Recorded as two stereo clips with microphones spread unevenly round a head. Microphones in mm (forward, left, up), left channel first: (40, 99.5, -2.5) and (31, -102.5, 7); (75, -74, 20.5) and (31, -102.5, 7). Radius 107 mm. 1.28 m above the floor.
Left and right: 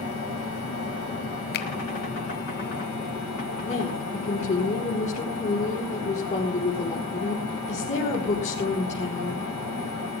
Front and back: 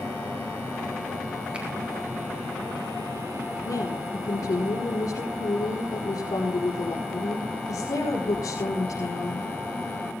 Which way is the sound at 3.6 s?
30° left.